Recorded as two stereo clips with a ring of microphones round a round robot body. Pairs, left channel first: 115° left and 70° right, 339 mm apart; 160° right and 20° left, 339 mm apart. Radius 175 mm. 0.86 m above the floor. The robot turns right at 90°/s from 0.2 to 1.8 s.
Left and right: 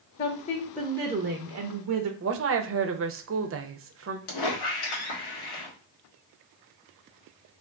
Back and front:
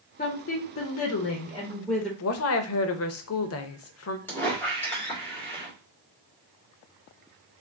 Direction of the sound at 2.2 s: 115° right.